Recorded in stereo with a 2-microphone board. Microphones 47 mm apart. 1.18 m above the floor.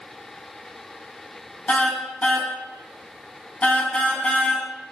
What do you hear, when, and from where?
1.7 s a car horn: 30° left (ahead or behind), 3.5 m